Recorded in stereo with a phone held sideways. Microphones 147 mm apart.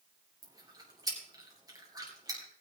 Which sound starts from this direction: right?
Chewing, at 0.4 s.